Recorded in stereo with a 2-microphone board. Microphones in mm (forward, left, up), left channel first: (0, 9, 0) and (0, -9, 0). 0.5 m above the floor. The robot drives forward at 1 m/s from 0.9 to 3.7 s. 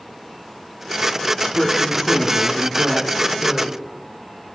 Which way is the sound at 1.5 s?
5° right (ahead or behind).